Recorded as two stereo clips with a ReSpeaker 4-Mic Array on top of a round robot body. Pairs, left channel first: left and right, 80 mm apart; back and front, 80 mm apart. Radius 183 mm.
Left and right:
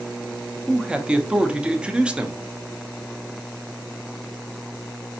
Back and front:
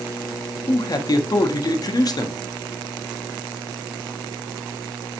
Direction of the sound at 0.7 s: 165° right.